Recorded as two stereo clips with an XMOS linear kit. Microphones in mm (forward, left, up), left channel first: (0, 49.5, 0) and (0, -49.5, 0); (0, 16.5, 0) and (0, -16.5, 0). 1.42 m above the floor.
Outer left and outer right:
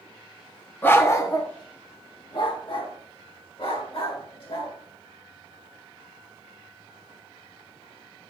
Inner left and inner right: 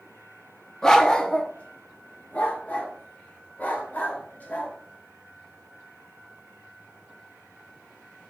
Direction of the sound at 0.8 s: 20° left (ahead or behind).